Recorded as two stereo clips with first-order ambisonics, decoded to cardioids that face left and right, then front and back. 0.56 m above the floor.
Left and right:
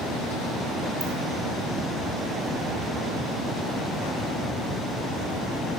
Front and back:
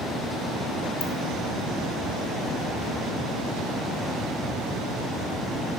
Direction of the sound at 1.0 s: 15° right.